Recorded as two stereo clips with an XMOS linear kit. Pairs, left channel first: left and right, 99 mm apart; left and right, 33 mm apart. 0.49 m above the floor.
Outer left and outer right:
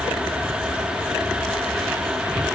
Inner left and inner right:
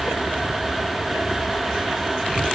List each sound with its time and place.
Only background noise.